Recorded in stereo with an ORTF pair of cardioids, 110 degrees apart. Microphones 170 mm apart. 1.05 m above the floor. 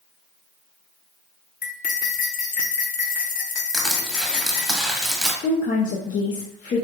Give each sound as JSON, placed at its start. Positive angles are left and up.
{"t": 1.6, "sound": "cutlery clinking", "azimuth_deg": 55, "distance_m": 1.0}
{"t": 3.7, "sound": "crushing", "azimuth_deg": 0, "distance_m": 1.4}
{"t": 5.4, "sound": "a woman speaking", "azimuth_deg": 50, "distance_m": 0.9}